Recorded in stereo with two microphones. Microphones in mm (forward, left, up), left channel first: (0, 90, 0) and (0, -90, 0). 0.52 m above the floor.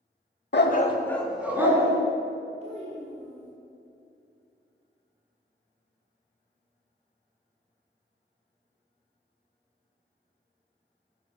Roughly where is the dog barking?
Left.